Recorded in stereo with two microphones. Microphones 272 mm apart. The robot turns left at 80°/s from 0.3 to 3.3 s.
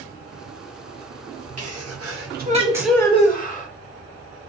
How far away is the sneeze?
About 1.1 m.